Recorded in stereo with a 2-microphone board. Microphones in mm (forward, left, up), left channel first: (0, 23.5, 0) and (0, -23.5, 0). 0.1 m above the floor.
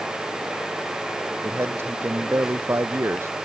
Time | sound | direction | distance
1.4 | a man speaking | 65° right (ahead or behind) | ?